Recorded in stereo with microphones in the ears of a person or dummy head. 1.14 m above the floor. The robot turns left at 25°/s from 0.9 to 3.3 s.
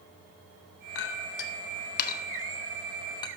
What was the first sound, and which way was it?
A clink, 70° left (ahead or behind).